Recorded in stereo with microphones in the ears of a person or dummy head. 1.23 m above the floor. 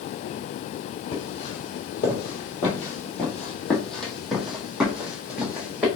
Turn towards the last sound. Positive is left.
turn(degrees=-10)  # may be behind; listen again after turning